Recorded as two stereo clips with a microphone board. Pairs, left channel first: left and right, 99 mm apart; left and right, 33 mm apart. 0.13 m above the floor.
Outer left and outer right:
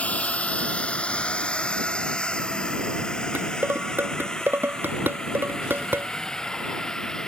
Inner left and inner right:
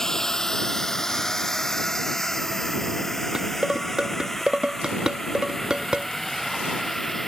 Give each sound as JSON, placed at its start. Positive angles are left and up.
{"t": 0.0, "sound": "a drone", "side_deg": 15}
{"t": 3.4, "sound": "dishes clattering", "side_deg": -20}